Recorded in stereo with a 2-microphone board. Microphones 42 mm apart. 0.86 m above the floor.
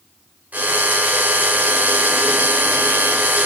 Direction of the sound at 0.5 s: 40° right (ahead or behind).